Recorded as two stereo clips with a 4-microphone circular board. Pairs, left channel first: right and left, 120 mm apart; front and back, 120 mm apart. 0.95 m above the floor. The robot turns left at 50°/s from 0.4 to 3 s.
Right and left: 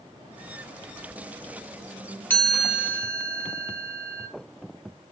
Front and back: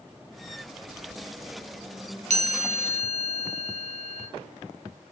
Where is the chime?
165° right, 0.6 m; by 4.3 s 160° left, 0.6 m.